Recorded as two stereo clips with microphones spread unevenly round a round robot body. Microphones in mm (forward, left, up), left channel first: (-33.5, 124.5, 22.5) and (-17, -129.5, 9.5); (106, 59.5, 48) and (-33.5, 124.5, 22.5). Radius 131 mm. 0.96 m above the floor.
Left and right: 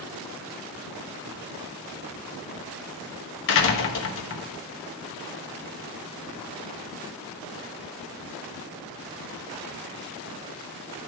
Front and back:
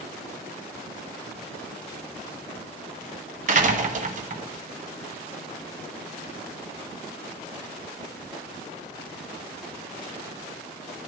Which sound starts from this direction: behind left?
A door slam, at 3.5 s.